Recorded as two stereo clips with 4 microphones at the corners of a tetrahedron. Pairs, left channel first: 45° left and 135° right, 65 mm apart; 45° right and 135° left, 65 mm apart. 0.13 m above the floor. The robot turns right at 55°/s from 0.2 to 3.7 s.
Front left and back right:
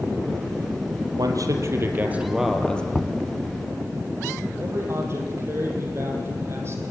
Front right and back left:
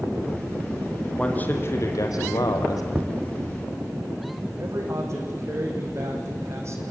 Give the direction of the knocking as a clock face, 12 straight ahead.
8 o'clock.